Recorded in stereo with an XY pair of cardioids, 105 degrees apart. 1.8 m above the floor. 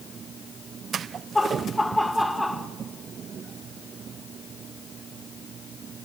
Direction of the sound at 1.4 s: 10° left.